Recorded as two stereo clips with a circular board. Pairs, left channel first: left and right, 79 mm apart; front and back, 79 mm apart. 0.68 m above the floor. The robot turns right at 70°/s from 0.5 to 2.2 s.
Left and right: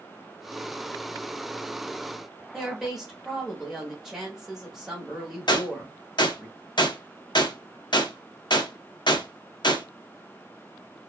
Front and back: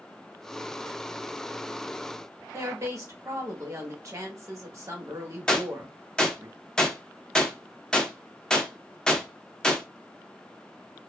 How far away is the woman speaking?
About 1.1 m.